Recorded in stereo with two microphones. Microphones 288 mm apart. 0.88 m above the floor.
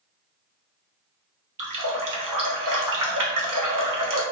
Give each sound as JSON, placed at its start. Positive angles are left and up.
{"t": 1.6, "sound": "a running tap", "side_deg": -85, "distance_m": 0.6}